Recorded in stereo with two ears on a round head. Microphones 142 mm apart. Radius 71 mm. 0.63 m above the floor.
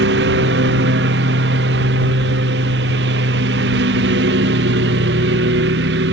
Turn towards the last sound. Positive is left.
turn(degrees=-80)